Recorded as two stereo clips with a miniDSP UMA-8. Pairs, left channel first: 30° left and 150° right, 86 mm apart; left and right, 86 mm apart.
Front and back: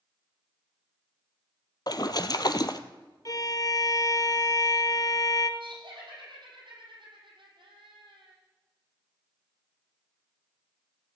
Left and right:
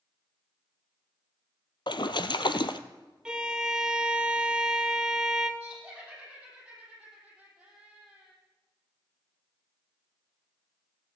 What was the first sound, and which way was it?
A splash, 65° left.